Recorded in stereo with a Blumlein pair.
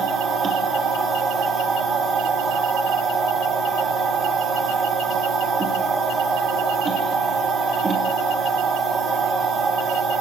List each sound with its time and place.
0.0 s a machine running: 20° right, 1.4 m